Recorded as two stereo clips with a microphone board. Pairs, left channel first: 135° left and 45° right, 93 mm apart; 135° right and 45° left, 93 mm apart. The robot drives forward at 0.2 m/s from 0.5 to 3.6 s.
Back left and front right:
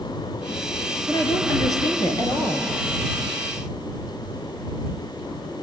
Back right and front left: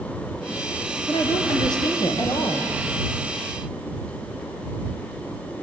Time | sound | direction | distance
1.1 | a woman speaking | 175° right | 3 m